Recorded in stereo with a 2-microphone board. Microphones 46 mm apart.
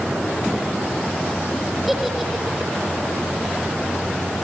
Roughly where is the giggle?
Centre.